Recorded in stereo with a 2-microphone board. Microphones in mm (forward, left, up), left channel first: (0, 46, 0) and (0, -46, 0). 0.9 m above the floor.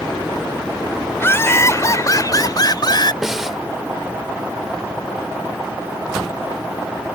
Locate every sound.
1.2 s laughter: 25° left (ahead or behind); by 3.1 s 55° left (ahead or behind)
3.2 s a snare drum: 5° right (ahead or behind)